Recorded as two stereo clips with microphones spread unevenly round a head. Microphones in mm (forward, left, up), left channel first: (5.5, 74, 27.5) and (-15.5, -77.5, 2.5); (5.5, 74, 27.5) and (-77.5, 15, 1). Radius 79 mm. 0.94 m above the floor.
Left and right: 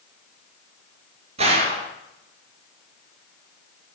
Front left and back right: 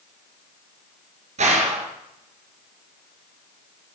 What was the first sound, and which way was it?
A gunshot, 150° right.